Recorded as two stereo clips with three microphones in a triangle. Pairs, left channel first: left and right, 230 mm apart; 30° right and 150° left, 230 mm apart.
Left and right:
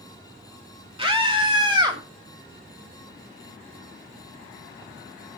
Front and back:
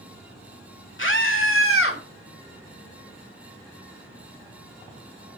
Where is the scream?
30° right, 2.5 m; by 2.0 s 20° right, 3.5 m.